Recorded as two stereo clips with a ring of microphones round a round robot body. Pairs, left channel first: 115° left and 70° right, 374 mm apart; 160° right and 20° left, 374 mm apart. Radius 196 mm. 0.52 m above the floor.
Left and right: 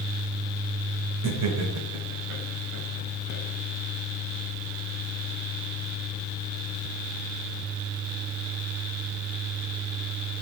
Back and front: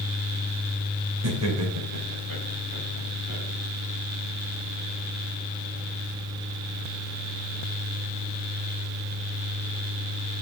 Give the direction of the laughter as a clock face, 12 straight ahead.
1 o'clock.